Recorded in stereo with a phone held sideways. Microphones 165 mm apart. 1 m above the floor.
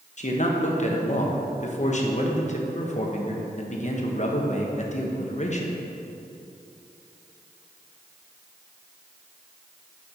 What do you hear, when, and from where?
0.2 s a man speaking: 45° left (ahead or behind), 1.0 m